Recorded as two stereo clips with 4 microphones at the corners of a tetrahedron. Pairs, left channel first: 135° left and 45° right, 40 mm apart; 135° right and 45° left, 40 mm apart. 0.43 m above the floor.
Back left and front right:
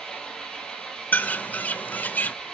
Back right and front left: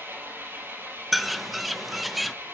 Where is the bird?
130° left, 0.7 m.